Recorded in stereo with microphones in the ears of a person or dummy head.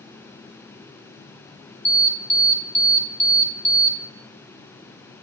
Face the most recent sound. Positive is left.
turn(degrees=15)  # may be behind; listen again after turning